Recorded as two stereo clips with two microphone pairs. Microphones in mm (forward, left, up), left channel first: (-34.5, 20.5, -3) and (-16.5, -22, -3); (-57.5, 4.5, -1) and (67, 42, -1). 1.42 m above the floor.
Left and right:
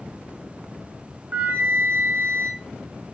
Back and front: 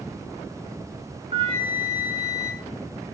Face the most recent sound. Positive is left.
turn(degrees=-25)